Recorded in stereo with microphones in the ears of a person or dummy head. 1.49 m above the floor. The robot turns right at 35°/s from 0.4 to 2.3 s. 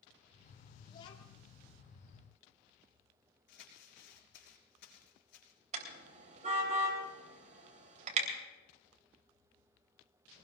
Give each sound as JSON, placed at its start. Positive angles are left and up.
{"t": 0.9, "sound": "a child speaking", "side_deg": 30, "distance_m": 2.5}
{"t": 3.5, "sound": "crumpling", "side_deg": 60, "distance_m": 4.0}
{"t": 5.7, "sound": "a car horn", "side_deg": -40, "distance_m": 3.5}